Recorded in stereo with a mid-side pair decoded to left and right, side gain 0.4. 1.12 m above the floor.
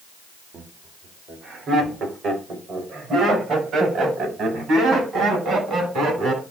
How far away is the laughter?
About 3.5 m.